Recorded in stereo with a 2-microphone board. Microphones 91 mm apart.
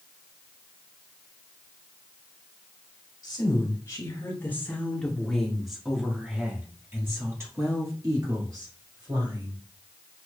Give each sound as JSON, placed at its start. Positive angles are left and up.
{"t": 3.2, "sound": "a woman speaking", "side_deg": 40, "distance_m": 1.8}